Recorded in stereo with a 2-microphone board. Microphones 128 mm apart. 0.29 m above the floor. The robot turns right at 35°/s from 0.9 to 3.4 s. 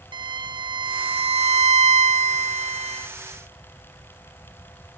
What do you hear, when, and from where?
0.1 s a violin: 140° right, 0.7 m; by 3.1 s 60° right, 0.7 m